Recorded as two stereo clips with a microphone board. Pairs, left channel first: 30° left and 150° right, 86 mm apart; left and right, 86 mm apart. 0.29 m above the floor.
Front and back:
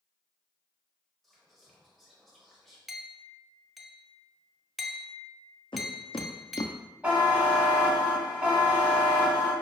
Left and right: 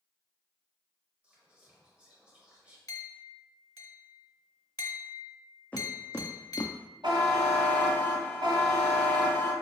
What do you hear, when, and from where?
1.2 s whispering: 50° right, 1.5 m
2.9 s a clink: 120° left, 0.7 m
5.7 s footsteps: 20° left, 0.8 m; by 6.7 s 60° left, 0.5 m
7.0 s a buzzer: 75° right, 1.3 m